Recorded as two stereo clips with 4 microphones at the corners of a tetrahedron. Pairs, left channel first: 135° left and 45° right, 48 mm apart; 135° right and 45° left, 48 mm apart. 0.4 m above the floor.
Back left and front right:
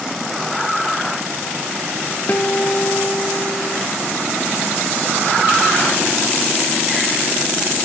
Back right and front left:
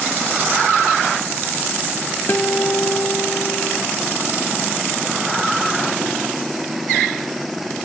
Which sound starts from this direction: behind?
A guitar, at 2.3 s.